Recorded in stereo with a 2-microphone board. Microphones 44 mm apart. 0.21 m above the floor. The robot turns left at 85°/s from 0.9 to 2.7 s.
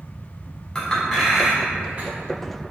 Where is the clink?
15° left (ahead or behind), 0.8 m; by 2.1 s 40° right (ahead or behind), 0.8 m.